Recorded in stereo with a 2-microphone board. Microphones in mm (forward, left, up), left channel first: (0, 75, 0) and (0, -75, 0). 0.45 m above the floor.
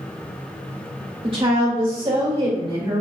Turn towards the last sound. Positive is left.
turn(degrees=-40)  # may be behind; listen again after turning